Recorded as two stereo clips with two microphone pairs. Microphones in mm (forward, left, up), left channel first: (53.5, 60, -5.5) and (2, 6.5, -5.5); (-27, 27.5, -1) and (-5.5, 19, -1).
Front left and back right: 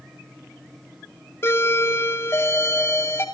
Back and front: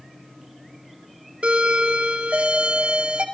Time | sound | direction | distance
1.4 | a doorbell | straight ahead | 2.5 m